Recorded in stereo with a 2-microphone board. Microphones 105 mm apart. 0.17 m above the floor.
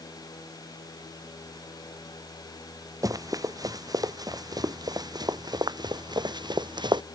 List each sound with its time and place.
3.0 s running footsteps: 35° right (ahead or behind); by 7.0 s 45° right (ahead or behind)